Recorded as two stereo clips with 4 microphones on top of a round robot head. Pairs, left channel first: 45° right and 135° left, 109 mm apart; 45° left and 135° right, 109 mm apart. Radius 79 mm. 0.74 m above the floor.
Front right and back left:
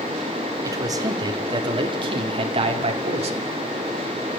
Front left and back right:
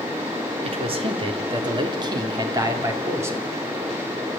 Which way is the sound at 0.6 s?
165° right.